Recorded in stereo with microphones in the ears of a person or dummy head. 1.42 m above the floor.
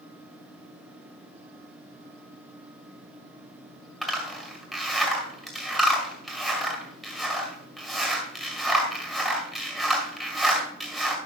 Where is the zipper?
Centre (ahead or behind), 3 m.